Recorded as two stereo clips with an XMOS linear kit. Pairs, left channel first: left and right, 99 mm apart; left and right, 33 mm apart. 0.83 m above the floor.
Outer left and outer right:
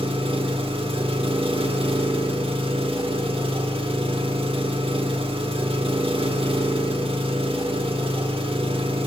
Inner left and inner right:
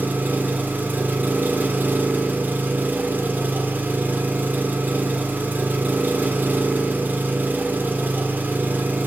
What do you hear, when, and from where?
0.0 s an engine running: 70° right (ahead or behind), 1.4 m